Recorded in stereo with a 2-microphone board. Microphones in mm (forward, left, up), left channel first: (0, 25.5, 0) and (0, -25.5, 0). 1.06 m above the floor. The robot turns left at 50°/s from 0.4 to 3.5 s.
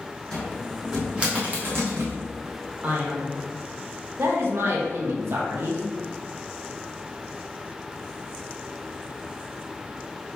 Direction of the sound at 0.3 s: 15° left (ahead or behind).